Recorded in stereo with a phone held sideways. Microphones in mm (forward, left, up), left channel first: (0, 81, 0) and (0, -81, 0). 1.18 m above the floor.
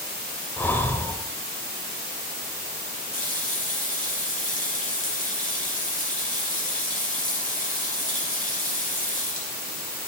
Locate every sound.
0.6 s breathing: 15° left (ahead or behind), 1.0 m
3.1 s a running tap: 60° left (ahead or behind), 3 m